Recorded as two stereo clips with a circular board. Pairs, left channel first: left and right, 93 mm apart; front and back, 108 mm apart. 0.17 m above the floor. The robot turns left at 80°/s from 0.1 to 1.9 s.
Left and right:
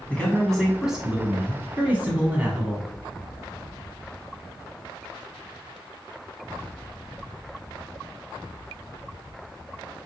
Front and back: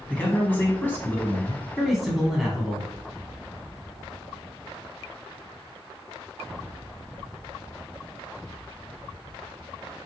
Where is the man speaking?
50° left, 1.2 m; by 2.9 s 95° right, 1.2 m.